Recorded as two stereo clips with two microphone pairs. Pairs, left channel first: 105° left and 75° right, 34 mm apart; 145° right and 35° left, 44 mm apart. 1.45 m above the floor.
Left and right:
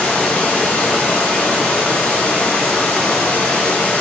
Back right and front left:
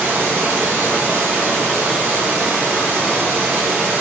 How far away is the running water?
About 1.1 m.